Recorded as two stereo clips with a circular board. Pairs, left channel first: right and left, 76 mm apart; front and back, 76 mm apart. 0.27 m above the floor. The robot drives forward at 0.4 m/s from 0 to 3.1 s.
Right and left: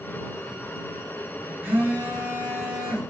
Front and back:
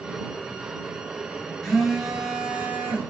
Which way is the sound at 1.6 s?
75° left.